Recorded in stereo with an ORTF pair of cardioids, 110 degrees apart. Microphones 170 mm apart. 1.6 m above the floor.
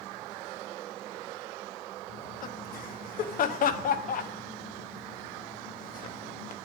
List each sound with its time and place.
2.1 s laughter: 55° left, 1.2 m